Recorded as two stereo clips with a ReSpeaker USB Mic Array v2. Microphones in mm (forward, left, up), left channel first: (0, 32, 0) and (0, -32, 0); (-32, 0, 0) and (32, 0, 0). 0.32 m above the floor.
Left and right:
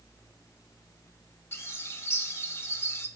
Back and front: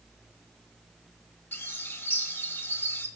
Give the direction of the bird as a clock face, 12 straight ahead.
8 o'clock.